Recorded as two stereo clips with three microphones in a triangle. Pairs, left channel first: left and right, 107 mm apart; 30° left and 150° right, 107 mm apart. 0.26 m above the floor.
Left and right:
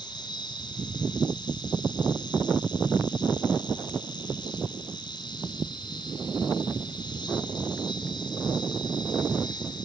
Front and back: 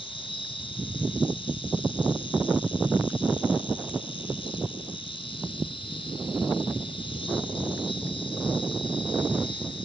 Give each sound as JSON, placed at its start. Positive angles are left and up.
{"t": 0.0, "sound": "an insect", "azimuth_deg": 50, "distance_m": 1.5}